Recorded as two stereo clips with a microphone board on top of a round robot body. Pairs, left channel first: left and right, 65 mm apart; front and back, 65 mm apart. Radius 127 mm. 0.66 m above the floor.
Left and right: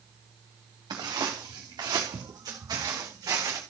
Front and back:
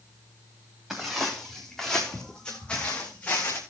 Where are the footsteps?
95° right, 4 m; by 3.6 s 60° right, 3 m.